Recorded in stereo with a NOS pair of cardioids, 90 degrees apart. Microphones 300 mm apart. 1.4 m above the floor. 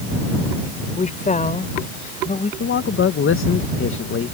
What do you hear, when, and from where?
1.0 s a woman speaking: 25° left
2.6 s a man speaking: 45° left